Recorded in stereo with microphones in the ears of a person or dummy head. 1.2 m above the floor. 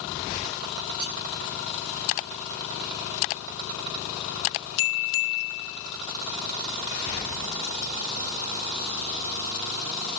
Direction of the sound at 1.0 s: 85° right.